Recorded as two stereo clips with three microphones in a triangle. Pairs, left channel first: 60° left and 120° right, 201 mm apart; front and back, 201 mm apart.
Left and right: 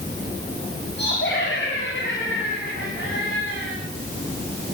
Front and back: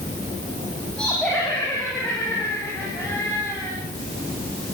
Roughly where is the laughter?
Left.